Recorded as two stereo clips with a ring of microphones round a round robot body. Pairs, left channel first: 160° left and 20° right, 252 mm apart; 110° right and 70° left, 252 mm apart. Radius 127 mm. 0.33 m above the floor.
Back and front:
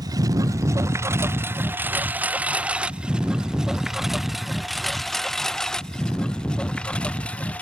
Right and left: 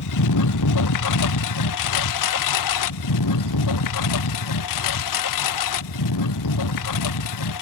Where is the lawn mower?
100° right; by 7.6 s 115° right.